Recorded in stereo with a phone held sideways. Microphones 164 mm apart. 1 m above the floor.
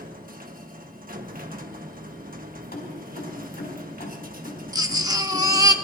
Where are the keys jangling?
85° left, 4.5 m.